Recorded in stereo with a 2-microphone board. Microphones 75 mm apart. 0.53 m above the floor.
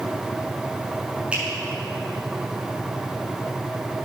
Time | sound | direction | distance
1.3 | a finger snap | 15° right (ahead or behind) | 6.5 m